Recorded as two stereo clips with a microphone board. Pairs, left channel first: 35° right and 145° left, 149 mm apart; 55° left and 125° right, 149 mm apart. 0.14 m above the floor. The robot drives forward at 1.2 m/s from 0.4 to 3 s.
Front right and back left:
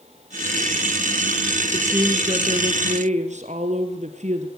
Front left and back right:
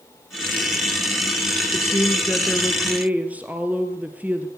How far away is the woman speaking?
About 1.3 m.